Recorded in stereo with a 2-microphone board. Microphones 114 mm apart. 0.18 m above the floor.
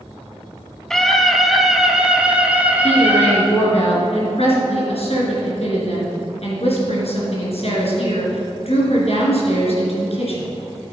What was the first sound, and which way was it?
A scream, 5° left (ahead or behind).